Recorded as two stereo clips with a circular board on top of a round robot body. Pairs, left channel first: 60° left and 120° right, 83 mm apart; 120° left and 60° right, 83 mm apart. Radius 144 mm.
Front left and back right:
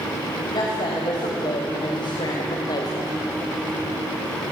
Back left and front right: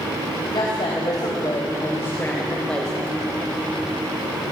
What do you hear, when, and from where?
0.5 s a woman speaking: 90° left, 4 m; by 3.1 s 30° left, 2.5 m